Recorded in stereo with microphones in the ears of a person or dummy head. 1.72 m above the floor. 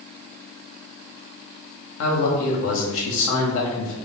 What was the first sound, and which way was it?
A man speaking, 70° left (ahead or behind).